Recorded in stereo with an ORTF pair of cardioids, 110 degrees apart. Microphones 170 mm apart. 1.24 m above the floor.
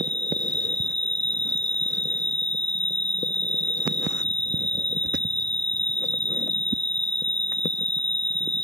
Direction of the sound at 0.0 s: 5° left.